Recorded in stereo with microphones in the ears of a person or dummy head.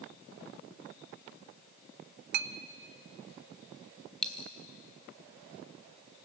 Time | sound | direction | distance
2.3 | a clink | 50° right (ahead or behind) | 0.6 m
4.2 | a dropped coin | 5° left (ahead or behind) | 1.2 m